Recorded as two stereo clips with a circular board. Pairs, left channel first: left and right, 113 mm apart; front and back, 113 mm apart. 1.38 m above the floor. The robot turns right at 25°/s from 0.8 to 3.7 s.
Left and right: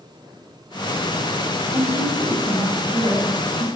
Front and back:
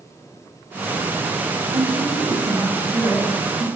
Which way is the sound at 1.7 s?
155° right.